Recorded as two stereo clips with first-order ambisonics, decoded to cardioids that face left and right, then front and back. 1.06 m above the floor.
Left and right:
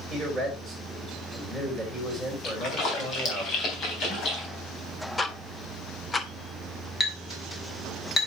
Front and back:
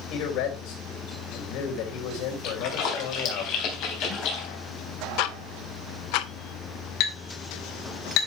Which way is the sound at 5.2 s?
10° left.